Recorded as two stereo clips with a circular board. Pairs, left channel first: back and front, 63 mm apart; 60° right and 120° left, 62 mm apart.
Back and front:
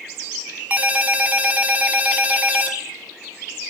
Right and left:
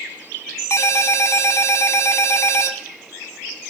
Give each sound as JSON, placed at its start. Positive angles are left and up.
{"t": 0.7, "sound": "a ringtone", "azimuth_deg": -55, "distance_m": 0.9}